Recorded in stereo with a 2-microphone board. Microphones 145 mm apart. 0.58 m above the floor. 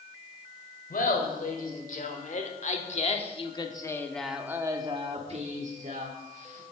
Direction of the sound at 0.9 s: 70° left (ahead or behind).